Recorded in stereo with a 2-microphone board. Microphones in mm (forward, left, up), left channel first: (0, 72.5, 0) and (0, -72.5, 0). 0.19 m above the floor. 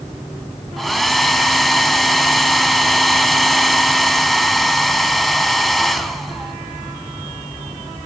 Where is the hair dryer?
Centre (ahead or behind), 0.5 m.